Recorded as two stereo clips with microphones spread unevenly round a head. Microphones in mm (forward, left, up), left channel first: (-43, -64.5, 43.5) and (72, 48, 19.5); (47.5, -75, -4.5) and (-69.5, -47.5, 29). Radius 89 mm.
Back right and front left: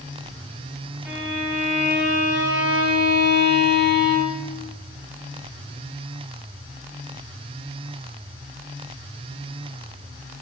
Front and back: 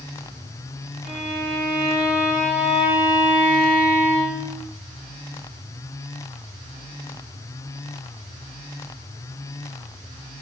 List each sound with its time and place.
1.1 s a violin: 130° left, 7 m